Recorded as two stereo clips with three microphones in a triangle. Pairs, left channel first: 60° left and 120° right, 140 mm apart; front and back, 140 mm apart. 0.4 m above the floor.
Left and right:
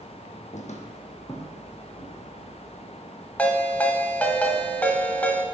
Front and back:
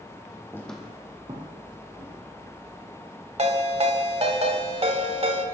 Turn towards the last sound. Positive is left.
turn(degrees=140)